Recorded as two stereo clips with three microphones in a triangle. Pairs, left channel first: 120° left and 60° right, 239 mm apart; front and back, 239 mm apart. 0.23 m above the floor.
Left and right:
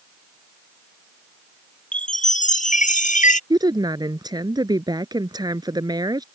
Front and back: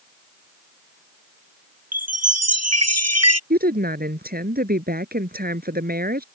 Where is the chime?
Straight behind.